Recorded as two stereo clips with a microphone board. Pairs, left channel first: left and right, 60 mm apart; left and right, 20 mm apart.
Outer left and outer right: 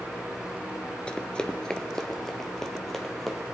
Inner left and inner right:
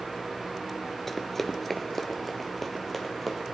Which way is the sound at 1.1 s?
20° left (ahead or behind).